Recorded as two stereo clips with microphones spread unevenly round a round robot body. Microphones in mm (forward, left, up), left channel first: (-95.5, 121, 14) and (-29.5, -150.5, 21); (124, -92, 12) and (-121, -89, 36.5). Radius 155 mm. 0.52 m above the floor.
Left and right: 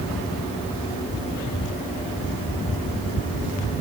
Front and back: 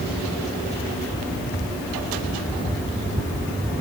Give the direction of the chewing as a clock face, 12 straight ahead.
No chewing in this recording.